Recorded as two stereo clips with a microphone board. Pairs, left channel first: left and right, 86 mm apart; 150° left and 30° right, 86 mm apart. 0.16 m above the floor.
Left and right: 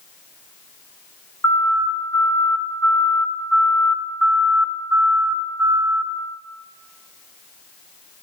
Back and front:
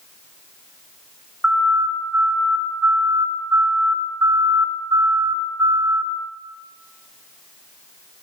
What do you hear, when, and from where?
1.4 s a siren: 45° left, 3.5 m; by 6.0 s 55° right, 2.5 m